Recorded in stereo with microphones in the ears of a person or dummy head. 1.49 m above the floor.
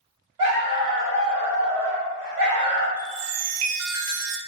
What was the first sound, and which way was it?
A dog barking, 15° right (ahead or behind).